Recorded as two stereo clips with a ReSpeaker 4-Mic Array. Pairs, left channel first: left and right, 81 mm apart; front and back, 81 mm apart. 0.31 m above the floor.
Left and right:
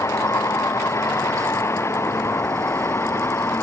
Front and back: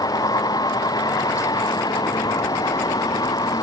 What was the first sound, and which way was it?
A vehicle, 35° left.